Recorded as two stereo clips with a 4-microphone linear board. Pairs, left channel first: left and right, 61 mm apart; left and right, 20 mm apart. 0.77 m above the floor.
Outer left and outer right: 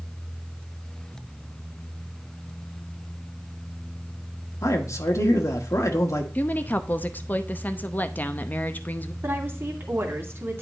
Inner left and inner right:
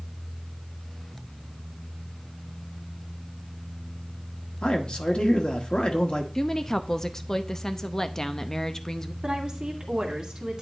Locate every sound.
4.6 s a man speaking: 60° left (ahead or behind), 1.4 m
6.3 s a woman speaking: 30° left (ahead or behind), 0.7 m
9.2 s a woman speaking: 45° right (ahead or behind), 2 m